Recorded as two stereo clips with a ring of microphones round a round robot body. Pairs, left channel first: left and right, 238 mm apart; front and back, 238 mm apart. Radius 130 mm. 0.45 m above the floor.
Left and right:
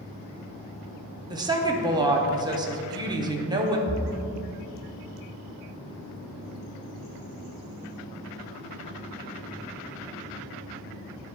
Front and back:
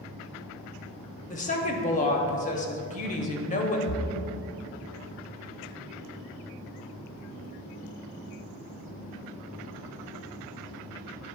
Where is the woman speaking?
30° right, 0.8 m.